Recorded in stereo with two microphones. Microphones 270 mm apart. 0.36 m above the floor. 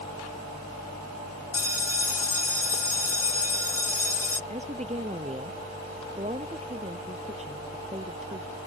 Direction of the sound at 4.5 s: 25° right (ahead or behind).